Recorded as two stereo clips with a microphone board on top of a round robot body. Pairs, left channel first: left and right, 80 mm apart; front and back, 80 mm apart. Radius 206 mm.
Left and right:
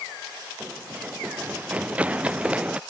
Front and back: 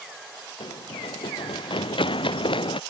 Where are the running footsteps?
20° right; by 2.8 s 15° right.